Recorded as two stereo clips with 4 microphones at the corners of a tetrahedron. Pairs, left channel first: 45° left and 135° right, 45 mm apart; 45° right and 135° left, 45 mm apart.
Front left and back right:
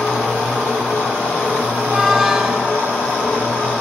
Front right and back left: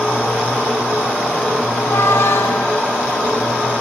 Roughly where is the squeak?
Ahead right.